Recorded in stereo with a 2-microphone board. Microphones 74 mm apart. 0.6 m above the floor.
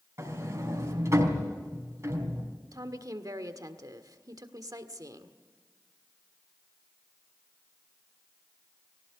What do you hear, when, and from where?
0.2 s a sliding door: 45° right (ahead or behind), 4 m
2.7 s a woman speaking: 55° right (ahead or behind), 1.6 m